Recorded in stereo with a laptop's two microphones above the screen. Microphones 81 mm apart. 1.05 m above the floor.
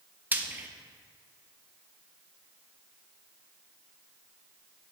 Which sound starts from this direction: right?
Frying, at 0.3 s.